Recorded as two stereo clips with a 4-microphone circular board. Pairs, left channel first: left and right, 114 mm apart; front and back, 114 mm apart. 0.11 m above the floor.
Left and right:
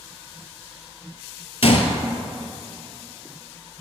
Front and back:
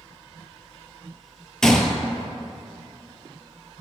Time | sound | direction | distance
1.6 | a gunshot | 85° left | 0.5 m